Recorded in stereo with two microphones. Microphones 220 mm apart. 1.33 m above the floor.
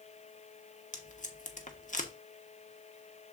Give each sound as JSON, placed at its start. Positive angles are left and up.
{"t": 0.9, "sound": "tape being pulled", "side_deg": 35, "distance_m": 1.0}